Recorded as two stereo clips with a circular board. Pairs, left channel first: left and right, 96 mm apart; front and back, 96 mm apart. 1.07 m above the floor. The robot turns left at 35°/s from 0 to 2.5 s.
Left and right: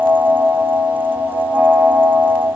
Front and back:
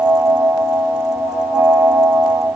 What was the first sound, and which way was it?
Only background noise.